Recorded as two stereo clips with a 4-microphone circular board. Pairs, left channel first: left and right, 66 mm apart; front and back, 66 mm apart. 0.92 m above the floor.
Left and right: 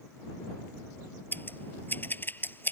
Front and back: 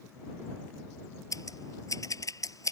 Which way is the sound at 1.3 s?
30° left.